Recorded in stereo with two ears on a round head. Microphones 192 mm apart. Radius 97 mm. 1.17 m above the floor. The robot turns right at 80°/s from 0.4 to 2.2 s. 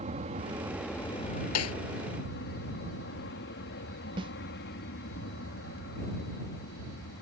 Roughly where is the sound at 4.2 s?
Right.